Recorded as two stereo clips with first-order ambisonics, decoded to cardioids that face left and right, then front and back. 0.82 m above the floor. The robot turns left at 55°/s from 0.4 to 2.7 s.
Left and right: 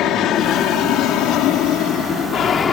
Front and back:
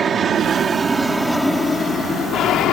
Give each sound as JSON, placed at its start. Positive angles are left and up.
{"t": 0.0, "sound": "an aircraft", "azimuth_deg": 115}